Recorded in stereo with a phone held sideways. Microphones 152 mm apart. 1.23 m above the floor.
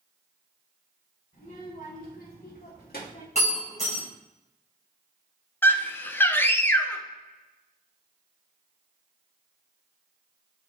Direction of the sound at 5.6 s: 15° left (ahead or behind).